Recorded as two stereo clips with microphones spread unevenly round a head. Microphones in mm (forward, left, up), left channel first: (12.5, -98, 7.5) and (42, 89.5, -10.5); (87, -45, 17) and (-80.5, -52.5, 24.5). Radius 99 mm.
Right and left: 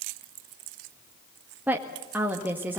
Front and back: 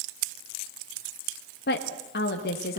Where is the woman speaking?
5° left, 1.7 m.